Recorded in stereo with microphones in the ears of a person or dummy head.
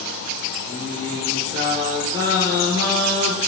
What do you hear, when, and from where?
0.7 s singing: 20° right (ahead or behind), 5.5 m